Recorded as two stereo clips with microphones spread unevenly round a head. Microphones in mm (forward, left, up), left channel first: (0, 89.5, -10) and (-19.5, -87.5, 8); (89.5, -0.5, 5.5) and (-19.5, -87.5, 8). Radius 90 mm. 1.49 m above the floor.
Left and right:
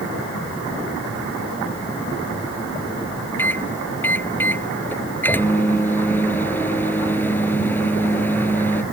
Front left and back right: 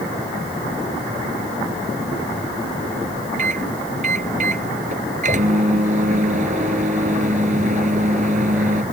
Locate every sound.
3.4 s a microwave: 165° left